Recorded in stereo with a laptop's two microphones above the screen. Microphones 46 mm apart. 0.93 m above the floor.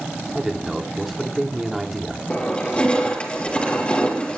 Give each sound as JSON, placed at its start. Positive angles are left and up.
{"t": 0.3, "sound": "a man speaking", "side_deg": -5, "distance_m": 2.0}
{"t": 2.3, "sound": "crushing", "side_deg": 25, "distance_m": 6.0}